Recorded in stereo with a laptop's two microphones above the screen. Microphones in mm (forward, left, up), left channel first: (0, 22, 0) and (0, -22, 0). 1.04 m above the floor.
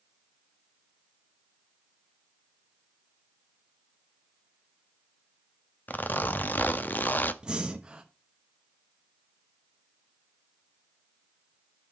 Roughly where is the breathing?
Centre.